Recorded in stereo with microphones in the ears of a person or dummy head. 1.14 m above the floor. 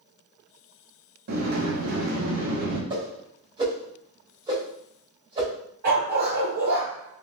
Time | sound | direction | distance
1.3 | a sliding door | 60° right (ahead or behind) | 1.0 m
2.9 | a whoosh | 30° right (ahead or behind) | 1.1 m
5.8 | a dog barking | 60° right (ahead or behind) | 1.5 m